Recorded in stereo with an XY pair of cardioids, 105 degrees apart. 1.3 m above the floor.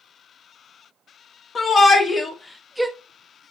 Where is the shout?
35° left, 1.4 m; by 2.9 s 20° right, 0.6 m.